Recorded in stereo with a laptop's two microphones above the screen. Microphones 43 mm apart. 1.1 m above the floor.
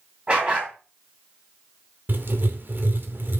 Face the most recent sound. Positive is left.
turn(degrees=-55)  # may be behind; listen again after turning